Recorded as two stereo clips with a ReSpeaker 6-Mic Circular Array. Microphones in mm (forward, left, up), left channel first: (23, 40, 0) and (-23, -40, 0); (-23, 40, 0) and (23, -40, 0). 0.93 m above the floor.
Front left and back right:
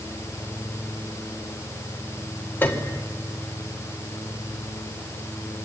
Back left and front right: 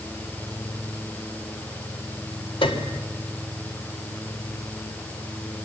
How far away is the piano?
About 2 m.